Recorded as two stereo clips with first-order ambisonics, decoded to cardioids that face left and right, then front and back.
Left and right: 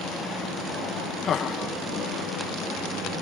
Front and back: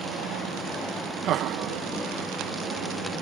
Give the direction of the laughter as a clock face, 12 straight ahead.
7 o'clock.